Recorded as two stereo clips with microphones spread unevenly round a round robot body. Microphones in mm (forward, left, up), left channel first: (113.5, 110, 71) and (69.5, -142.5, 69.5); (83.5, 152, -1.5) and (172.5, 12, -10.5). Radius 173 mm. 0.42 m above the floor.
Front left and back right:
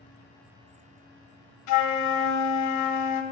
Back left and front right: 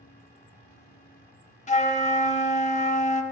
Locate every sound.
1.7 s a flute: 70° left, 0.8 m